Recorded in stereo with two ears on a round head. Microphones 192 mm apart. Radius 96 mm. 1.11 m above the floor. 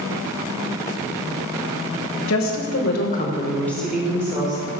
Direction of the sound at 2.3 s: 70° left (ahead or behind).